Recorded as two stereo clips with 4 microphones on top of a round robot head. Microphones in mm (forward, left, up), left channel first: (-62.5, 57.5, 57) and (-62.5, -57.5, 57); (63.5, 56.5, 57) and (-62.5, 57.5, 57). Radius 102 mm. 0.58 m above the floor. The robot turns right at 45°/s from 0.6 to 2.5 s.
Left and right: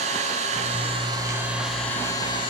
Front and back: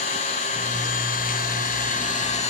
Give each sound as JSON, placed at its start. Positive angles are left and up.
{"t": 0.0, "sound": "an engine running", "azimuth_deg": -50, "distance_m": 2.0}